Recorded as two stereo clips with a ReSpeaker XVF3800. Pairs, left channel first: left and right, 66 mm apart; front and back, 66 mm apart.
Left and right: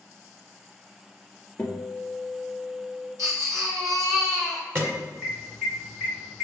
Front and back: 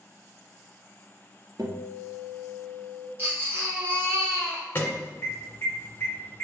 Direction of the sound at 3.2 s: 125° right.